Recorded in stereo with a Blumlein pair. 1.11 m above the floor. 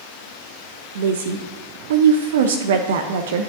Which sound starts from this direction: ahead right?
A woman speaking, at 0.9 s.